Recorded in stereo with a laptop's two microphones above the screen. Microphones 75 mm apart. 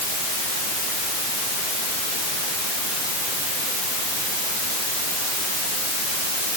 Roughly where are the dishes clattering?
I don't hear dishes clattering.